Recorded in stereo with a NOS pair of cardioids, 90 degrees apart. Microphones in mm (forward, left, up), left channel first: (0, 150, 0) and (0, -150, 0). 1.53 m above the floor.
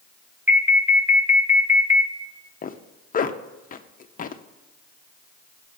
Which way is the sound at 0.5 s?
5° right.